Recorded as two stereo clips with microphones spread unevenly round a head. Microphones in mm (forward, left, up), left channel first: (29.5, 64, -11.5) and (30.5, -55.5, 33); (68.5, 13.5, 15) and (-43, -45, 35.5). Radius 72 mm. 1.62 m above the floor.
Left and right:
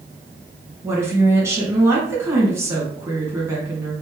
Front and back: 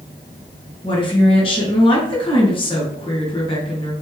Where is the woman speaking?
20° right, 2 m.